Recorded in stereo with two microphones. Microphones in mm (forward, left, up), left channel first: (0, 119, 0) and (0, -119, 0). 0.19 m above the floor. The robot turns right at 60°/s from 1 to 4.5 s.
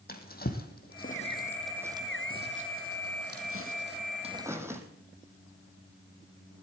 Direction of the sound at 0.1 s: 40° left (ahead or behind).